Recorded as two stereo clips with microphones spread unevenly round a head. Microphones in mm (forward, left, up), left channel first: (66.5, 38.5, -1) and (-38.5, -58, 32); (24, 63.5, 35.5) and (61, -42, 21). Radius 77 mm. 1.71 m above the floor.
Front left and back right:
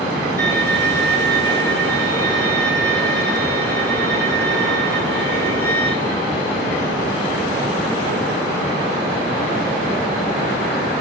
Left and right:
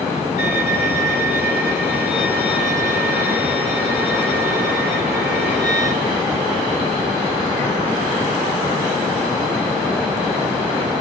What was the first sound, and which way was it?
A violin, 155° left.